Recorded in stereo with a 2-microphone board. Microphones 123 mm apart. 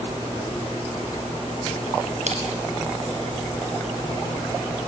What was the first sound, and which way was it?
Crushing, 65° right (ahead or behind).